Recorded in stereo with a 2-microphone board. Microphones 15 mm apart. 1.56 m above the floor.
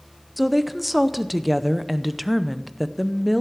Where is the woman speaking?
Centre (ahead or behind), 0.6 m.